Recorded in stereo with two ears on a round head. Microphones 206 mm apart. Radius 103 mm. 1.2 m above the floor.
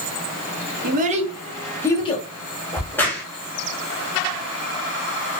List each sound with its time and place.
0.8 s a child speaking: 40° right (ahead or behind), 0.7 m; by 2.3 s 30° left (ahead or behind), 0.6 m
2.7 s a crack: 10° left (ahead or behind), 0.7 m